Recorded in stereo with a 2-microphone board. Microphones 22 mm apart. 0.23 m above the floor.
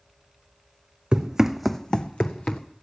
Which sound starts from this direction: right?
Running footsteps, at 1.1 s.